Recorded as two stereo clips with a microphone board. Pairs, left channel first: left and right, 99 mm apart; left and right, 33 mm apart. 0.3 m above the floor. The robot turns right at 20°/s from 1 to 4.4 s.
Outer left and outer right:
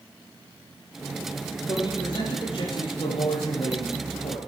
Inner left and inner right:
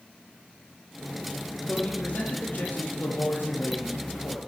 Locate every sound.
1.7 s a man speaking: 45° left, 9.5 m; by 4.4 s 100° left, 9.5 m